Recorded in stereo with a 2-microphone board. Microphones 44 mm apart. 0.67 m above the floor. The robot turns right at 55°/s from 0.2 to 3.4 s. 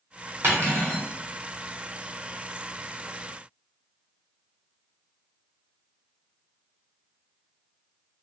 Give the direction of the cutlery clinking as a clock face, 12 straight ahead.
4 o'clock.